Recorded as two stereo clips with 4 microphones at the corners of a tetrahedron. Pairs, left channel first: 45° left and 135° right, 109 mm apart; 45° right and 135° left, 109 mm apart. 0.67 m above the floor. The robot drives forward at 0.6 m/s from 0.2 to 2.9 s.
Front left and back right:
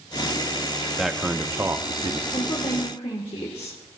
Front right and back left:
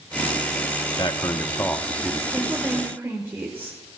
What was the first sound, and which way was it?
A man speaking, 45° right.